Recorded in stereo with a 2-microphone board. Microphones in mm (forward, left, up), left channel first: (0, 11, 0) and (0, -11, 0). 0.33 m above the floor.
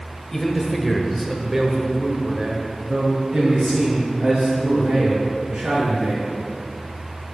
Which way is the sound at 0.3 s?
15° left (ahead or behind).